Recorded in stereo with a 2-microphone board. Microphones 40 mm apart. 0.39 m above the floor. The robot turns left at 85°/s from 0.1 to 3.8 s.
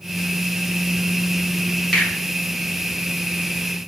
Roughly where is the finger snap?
Centre.